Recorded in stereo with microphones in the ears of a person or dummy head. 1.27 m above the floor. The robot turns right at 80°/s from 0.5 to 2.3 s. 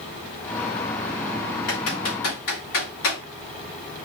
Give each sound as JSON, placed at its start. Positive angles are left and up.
{"t": 1.7, "sound": "typing on a keyboard", "side_deg": 60, "distance_m": 2.5}